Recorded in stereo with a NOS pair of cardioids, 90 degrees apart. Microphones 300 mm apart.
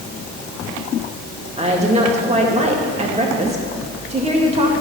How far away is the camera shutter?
I don't hear a camera shutter.